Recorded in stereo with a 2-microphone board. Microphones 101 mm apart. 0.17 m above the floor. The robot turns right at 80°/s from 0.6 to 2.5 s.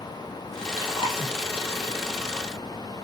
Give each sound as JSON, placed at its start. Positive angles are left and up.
{"t": 0.8, "sound": "chewing", "side_deg": 40, "distance_m": 4.5}